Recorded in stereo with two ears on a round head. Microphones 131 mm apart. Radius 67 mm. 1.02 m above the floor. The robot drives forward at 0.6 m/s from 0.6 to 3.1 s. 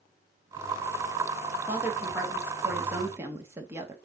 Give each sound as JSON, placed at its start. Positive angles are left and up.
{"t": 1.7, "sound": "a woman speaking", "side_deg": -10, "distance_m": 3.0}